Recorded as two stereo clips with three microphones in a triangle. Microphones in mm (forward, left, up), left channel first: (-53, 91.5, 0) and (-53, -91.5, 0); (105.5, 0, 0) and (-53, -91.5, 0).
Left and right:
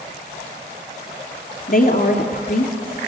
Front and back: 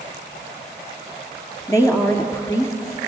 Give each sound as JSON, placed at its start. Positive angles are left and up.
{"t": 1.7, "sound": "a woman speaking", "azimuth_deg": 100, "distance_m": 2.0}